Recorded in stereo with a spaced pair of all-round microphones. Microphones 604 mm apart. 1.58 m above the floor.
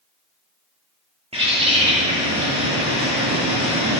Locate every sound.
1.3 s a bird: 10° right (ahead or behind), 2.0 m